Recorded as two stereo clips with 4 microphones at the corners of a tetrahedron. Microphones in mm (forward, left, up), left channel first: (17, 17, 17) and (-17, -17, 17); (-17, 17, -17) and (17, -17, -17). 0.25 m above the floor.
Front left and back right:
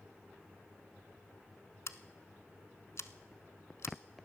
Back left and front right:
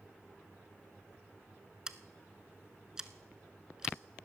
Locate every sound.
1.9 s scissors: 30° left, 0.6 m